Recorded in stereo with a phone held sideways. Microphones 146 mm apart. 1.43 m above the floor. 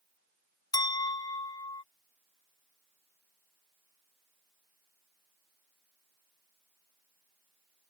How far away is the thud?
I don't hear a thud.